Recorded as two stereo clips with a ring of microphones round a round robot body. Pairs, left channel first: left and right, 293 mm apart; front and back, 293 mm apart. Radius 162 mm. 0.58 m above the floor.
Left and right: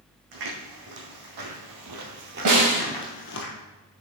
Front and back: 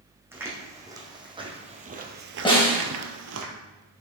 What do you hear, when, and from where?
0.3 s footsteps: 100° right, 2.5 m; by 3.5 s 135° left, 1.0 m
2.5 s a snare drum: 70° right, 3 m